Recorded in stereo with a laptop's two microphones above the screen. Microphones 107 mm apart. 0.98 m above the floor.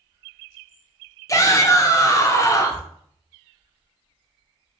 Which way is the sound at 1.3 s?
30° left (ahead or behind).